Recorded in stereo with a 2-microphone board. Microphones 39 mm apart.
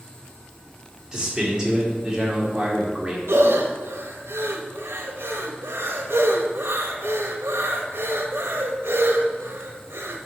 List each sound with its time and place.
1.1 s a man speaking: 15° right (ahead or behind), 1.7 m
3.3 s breathing: 90° right, 0.8 m